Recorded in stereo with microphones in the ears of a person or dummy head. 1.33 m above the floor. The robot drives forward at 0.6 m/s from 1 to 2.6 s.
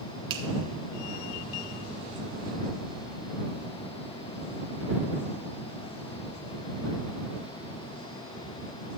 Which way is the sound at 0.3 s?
25° right (ahead or behind).